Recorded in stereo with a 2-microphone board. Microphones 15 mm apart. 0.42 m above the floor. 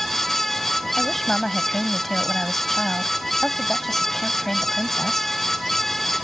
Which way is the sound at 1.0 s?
20° left (ahead or behind).